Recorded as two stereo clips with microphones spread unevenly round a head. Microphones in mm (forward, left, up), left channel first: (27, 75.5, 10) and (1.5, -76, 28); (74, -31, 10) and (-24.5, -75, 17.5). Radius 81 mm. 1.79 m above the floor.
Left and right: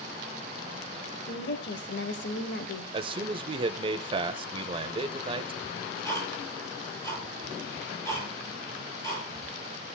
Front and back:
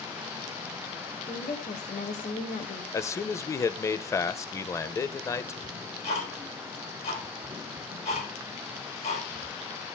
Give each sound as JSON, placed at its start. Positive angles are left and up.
{"t": 1.3, "sound": "a woman speaking", "azimuth_deg": 65, "distance_m": 1.2}
{"t": 2.9, "sound": "a man speaking", "azimuth_deg": -40, "distance_m": 0.7}
{"t": 5.6, "sound": "ticking", "azimuth_deg": 10, "distance_m": 7.5}